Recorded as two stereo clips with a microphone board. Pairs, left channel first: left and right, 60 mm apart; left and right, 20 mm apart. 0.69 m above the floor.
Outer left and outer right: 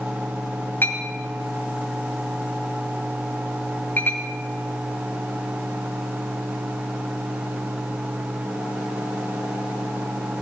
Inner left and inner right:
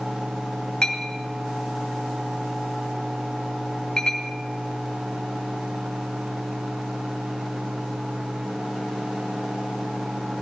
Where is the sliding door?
I don't hear a sliding door.